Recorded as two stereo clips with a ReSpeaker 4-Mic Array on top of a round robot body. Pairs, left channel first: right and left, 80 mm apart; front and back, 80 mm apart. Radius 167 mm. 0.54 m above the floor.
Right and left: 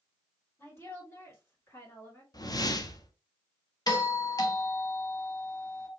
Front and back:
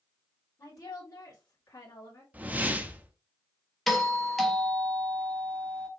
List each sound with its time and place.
0.6 s a woman speaking: 35° right, 3 m; by 2.2 s 40° right, 2 m
2.3 s a whoosh: 115° right, 1.0 m
3.9 s a doorbell: 85° right, 1.8 m